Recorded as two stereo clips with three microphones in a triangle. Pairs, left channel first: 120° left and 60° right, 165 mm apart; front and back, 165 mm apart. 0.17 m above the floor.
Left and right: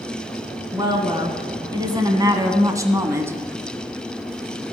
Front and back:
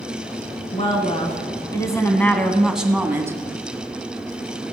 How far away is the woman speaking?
About 1.7 m.